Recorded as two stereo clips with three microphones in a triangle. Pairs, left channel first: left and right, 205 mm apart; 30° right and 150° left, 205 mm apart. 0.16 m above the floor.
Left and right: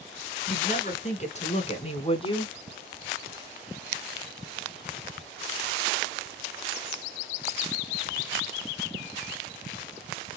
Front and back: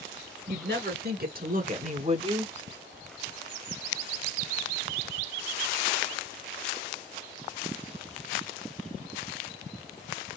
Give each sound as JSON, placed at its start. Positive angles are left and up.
{"t": 0.5, "sound": "a woman speaking", "azimuth_deg": 135, "distance_m": 2.5}